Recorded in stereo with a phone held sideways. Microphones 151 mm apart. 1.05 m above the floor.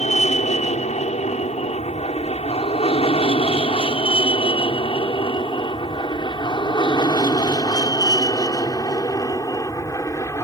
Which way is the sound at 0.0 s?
50° left (ahead or behind).